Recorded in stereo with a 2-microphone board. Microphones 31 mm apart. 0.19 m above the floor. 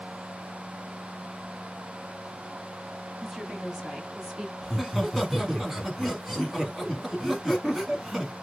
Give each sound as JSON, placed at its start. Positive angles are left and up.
{"t": 3.2, "sound": "a woman speaking", "side_deg": -5, "distance_m": 1.3}
{"t": 4.6, "sound": "laughter", "side_deg": -5, "distance_m": 1.7}